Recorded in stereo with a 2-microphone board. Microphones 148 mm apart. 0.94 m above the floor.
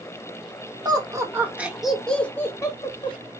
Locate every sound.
0.8 s laughter: 25° right (ahead or behind), 1.5 m; by 3.2 s 35° left (ahead or behind), 1.4 m